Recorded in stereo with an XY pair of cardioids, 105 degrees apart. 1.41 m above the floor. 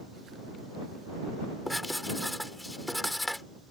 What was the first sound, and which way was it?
Writing, 10° left.